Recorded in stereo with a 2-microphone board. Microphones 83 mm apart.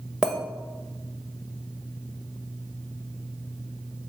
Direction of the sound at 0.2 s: 10° right (ahead or behind).